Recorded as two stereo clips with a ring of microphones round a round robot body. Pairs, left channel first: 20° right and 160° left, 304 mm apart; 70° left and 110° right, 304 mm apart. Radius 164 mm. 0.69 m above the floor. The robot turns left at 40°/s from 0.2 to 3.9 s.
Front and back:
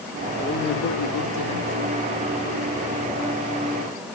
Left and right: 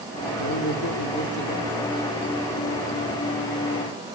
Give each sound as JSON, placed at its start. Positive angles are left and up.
{"t": 0.4, "sound": "a man speaking", "azimuth_deg": 40, "distance_m": 2.5}